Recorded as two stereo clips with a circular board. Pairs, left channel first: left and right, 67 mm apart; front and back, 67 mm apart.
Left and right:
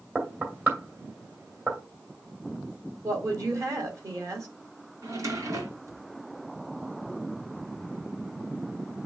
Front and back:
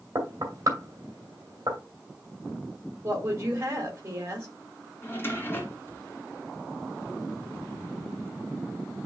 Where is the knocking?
145° right, 1.9 m.